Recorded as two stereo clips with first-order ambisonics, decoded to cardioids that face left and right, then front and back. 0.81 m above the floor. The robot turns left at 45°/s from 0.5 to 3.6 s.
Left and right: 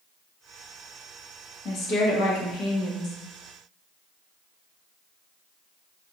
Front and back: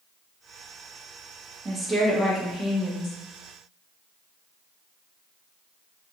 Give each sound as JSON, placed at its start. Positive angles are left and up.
{"t": 1.6, "sound": "a woman speaking", "azimuth_deg": 110, "distance_m": 0.8}